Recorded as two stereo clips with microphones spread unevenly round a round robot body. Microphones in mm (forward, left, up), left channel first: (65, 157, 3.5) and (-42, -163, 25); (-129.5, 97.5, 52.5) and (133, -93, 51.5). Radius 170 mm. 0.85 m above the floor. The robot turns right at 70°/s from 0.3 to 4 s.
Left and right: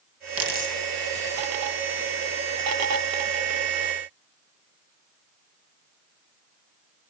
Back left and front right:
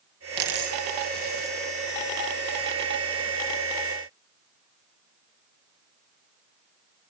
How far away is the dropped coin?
About 4.5 m.